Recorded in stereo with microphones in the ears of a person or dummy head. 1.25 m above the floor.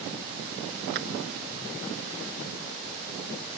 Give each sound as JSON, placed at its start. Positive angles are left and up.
{"t": 0.9, "sound": "a clap", "side_deg": -55}